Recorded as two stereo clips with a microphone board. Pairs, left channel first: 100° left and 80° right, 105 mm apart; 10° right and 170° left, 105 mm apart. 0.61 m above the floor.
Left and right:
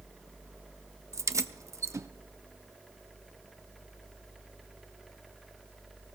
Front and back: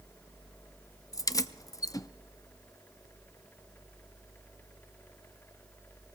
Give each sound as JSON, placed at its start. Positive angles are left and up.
{"t": 1.1, "sound": "keys jangling", "azimuth_deg": -45, "distance_m": 0.5}